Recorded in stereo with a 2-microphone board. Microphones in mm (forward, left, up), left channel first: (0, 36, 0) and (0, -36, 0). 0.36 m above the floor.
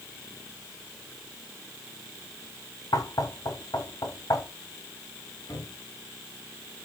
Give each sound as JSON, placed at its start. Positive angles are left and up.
{"t": 2.9, "sound": "knocking", "side_deg": 60, "distance_m": 2.0}
{"t": 5.5, "sound": "a cupboard door", "side_deg": 55, "distance_m": 5.5}